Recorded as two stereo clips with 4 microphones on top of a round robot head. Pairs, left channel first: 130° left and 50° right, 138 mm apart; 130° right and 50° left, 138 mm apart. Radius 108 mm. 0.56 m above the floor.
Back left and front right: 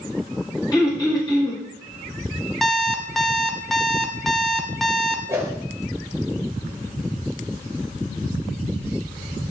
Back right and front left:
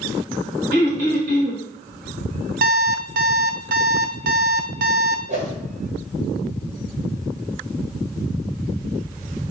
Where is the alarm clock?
40° left, 0.9 m.